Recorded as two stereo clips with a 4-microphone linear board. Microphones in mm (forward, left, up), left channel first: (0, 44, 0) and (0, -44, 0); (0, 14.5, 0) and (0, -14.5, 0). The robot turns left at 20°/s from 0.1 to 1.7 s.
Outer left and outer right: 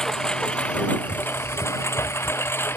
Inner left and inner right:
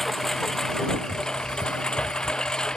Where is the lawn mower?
5° left (ahead or behind); by 2.8 s 25° left (ahead or behind).